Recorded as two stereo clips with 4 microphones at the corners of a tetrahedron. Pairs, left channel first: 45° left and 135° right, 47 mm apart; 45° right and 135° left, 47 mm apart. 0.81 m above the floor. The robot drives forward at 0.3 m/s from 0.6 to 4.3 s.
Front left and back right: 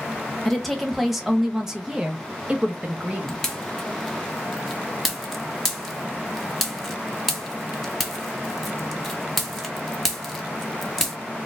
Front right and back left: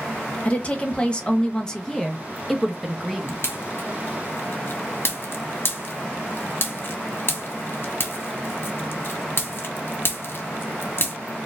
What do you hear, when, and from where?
0.5 s a woman speaking: 40° right, 1.0 m; by 3.4 s 145° right, 1.0 m
3.3 s a pop: 35° right, 1.2 m; by 11.2 s 45° right, 1.0 m